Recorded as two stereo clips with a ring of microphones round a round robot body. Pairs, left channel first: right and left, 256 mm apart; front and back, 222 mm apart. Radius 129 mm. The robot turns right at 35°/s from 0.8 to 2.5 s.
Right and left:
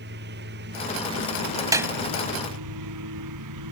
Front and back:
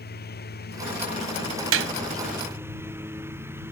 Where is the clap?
165° left; by 1.9 s 175° left.